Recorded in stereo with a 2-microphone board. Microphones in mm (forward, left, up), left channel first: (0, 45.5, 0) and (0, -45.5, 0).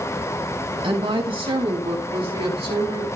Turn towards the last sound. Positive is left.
turn(degrees=-75)  # may be behind; listen again after turning